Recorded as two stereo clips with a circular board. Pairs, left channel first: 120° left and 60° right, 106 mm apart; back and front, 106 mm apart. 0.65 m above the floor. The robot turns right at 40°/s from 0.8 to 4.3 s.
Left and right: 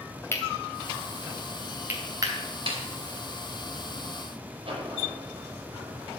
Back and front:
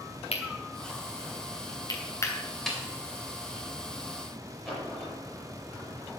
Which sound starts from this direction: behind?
Cutlery clinking, at 0.3 s.